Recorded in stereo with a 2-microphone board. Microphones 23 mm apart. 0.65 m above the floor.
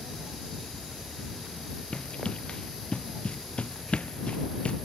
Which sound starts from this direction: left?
Running footsteps, at 1.9 s.